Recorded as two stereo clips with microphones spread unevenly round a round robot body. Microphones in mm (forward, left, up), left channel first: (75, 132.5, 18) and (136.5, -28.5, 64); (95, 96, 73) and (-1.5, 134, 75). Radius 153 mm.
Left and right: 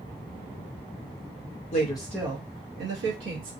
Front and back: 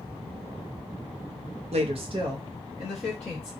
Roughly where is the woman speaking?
Behind left.